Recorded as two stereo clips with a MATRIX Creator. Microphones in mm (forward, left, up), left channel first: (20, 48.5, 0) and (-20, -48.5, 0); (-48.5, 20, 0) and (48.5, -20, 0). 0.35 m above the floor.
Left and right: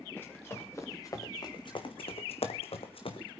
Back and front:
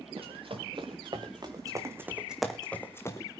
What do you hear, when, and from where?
0.2 s running footsteps: straight ahead, 3.5 m; by 3.3 s 100° left, 2 m